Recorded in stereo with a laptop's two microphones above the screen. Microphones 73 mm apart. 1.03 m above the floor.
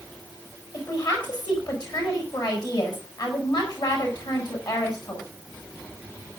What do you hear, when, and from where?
0.7 s a woman speaking: 55° left (ahead or behind), 6.5 m